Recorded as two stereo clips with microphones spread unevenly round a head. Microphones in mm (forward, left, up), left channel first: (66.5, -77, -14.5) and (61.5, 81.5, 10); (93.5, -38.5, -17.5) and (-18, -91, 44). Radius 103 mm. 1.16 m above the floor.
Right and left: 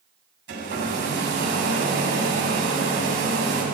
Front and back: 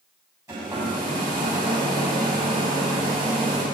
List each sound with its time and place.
0.5 s a hair dryer: 130° left, 8 m